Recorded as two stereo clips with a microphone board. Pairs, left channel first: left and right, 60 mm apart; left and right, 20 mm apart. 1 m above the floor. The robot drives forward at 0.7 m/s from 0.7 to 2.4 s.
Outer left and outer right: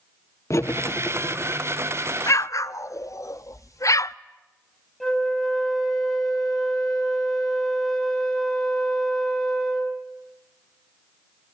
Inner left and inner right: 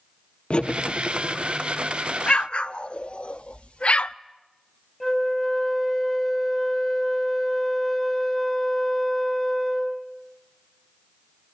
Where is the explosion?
55° left (ahead or behind), 0.5 m; by 4.2 s 60° left (ahead or behind), 0.5 m.